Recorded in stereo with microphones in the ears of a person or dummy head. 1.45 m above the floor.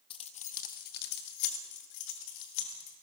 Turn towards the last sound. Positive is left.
turn(degrees=75)  # may be behind; listen again after turning